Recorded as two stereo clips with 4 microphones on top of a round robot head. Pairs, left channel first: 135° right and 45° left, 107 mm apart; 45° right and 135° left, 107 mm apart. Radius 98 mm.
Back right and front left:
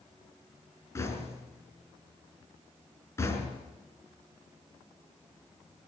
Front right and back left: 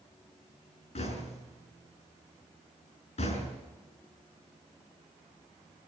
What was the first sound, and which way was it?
Knocking, 70° right.